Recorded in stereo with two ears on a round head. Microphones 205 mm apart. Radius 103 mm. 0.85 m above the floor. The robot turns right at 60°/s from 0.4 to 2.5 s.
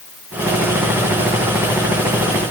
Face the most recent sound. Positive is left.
No sound to turn to.